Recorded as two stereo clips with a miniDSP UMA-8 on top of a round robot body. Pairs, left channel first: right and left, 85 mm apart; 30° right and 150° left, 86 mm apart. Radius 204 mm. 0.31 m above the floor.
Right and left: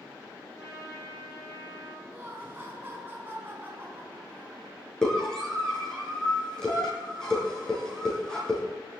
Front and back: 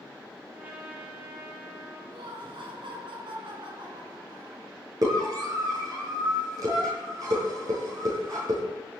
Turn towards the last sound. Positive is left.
turn(degrees=-170)